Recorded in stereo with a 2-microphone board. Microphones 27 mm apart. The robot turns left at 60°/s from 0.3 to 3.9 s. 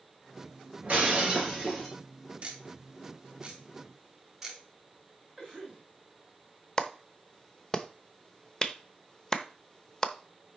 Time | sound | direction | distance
0.8 | breaking glass | 120° right | 3.5 m
2.4 | ticking | 55° right (ahead or behind) | 2.5 m
5.4 | a cough | 10° right (ahead or behind) | 2 m
6.8 | a clap | 20° left (ahead or behind) | 0.7 m